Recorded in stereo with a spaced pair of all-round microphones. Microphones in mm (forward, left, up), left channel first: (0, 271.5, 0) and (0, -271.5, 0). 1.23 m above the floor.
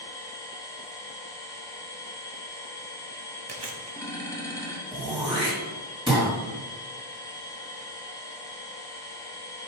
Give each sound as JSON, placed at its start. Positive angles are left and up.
{"t": 0.0, "sound": "a machine running", "side_deg": 5, "distance_m": 1.4}
{"t": 3.5, "sound": "chewing", "side_deg": -50, "distance_m": 0.8}
{"t": 4.9, "sound": "throat clearing", "side_deg": -10, "distance_m": 2.0}